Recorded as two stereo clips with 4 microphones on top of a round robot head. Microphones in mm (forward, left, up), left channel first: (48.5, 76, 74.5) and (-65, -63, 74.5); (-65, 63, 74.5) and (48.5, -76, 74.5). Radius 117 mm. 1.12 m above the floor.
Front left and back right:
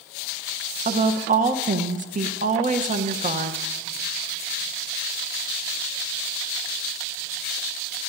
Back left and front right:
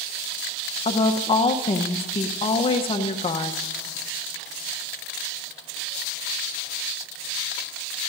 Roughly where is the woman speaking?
Behind.